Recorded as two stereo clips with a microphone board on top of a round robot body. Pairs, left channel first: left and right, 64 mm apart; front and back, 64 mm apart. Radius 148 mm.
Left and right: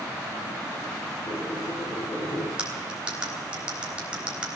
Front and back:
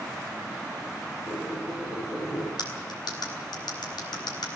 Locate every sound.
1.3 s a squeak: 55° left, 8 m
2.6 s cutlery clinking: 15° right, 3.5 m